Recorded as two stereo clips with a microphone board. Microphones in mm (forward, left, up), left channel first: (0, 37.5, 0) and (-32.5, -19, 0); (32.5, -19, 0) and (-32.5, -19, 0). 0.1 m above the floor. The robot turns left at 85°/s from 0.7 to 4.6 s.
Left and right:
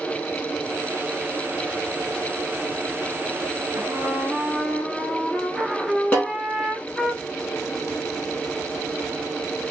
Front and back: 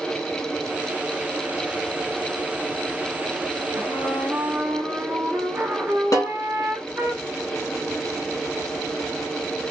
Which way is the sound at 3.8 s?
135° right.